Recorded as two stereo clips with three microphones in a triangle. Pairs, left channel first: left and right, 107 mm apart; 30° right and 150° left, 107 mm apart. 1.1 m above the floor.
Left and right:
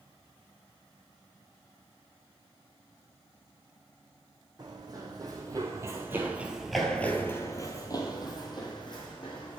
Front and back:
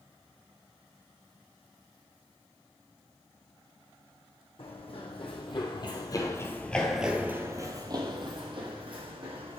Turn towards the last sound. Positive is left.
turn(degrees=130)